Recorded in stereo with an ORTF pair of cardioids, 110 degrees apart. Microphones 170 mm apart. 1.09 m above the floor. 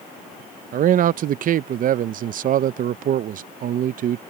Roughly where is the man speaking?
Ahead right.